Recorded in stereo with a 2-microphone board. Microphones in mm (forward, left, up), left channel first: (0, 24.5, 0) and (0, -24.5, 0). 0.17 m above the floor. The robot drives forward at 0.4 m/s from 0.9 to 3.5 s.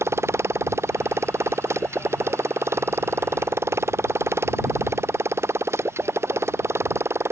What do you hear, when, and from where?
0.0 s a motorcycle: 70° right (ahead or behind)